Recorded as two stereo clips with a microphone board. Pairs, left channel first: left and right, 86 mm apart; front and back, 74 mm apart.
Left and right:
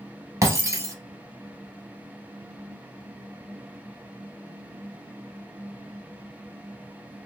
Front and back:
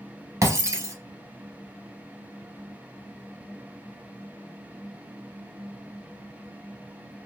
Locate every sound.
0.4 s breaking glass: 135° right, 0.9 m